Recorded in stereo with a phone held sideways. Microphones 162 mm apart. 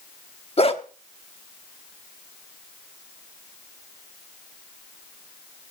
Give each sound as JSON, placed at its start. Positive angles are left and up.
{"t": 0.6, "sound": "a dog barking", "side_deg": 40, "distance_m": 1.1}